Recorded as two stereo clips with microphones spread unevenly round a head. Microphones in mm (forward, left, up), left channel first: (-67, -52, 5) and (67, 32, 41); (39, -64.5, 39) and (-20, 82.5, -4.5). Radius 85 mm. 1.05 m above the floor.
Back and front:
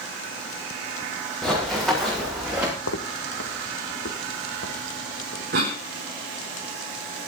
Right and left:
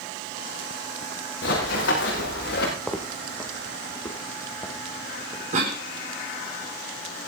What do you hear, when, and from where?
1.4 s running footsteps: 60° right, 6 m; by 2.7 s 50° right, 6 m
2.8 s footsteps: 145° right, 1.9 m; by 5.4 s 130° right, 3.5 m
5.5 s a cough: 70° left, 3.5 m